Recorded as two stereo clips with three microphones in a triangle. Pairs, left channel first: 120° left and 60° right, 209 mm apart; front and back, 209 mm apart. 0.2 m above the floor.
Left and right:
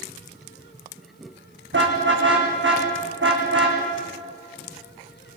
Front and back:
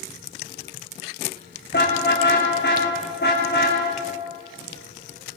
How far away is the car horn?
About 6.5 m.